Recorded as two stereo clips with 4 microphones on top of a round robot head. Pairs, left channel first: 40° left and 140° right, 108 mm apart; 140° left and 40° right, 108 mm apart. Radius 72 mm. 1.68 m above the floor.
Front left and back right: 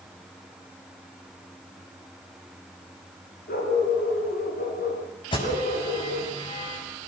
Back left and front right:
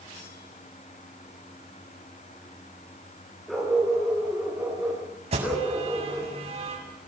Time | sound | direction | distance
3.5 | a dog barking | 50° left | 8 m
5.3 | an alarm | 5° right | 7.5 m